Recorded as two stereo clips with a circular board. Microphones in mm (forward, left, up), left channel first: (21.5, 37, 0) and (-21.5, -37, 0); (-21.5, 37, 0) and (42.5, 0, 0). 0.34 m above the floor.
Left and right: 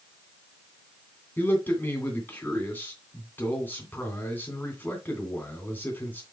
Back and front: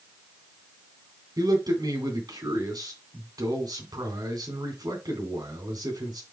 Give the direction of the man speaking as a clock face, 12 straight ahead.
12 o'clock.